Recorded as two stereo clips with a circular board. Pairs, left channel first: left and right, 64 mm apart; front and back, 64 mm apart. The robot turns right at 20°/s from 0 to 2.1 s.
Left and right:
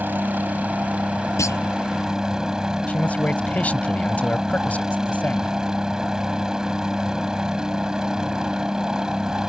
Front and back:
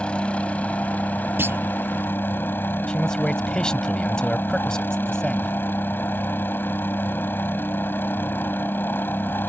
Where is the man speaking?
65° left.